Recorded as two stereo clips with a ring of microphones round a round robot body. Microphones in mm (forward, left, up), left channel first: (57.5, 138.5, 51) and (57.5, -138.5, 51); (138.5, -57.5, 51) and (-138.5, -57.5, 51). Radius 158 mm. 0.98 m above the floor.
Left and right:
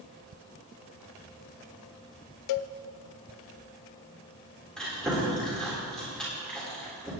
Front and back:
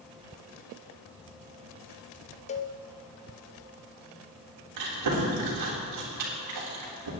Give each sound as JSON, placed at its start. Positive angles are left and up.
{"t": 2.5, "sound": "a cowbell", "azimuth_deg": 70, "distance_m": 0.5}
{"t": 4.8, "sound": "chewing", "azimuth_deg": 180, "distance_m": 3.5}